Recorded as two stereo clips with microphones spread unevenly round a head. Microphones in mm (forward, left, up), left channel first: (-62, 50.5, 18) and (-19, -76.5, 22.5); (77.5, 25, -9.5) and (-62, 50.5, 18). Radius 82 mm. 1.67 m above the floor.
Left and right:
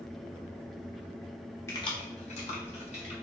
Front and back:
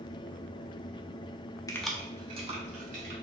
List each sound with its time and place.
1.7 s keys jangling: 50° left, 0.5 m; by 3.1 s 150° left, 1.6 m